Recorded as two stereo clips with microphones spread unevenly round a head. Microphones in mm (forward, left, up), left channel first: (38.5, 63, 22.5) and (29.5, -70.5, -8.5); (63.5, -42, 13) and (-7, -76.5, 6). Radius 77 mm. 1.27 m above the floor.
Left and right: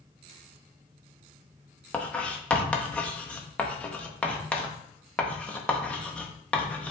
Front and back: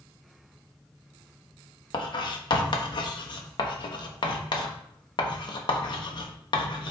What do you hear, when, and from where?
1.9 s writing: 5° left, 1.3 m